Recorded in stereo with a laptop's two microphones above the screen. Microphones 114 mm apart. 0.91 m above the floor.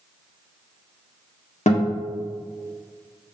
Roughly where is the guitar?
Left.